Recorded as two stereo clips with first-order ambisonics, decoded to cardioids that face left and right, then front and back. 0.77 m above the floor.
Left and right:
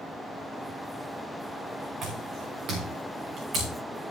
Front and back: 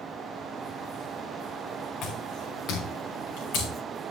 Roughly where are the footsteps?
Ahead right.